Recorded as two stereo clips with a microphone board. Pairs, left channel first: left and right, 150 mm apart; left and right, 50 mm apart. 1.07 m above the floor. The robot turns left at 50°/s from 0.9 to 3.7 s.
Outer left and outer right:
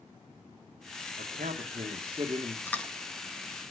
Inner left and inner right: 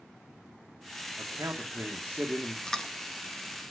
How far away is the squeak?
I don't hear a squeak.